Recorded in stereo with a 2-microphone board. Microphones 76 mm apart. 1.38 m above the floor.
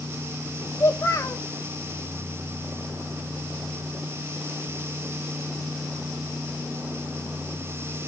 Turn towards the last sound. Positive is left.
turn(degrees=40)  # may be behind; listen again after turning